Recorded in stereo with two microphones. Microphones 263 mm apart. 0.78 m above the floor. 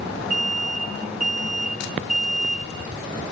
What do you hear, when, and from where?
0.3 s an alarm: 70° right (ahead or behind), 7 m